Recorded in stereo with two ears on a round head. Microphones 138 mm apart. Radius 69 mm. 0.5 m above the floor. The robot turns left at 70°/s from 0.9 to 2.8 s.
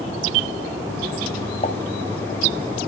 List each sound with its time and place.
1.6 s a pop: 40° left (ahead or behind), 2.5 m; by 1.8 s 30° left (ahead or behind), 2.5 m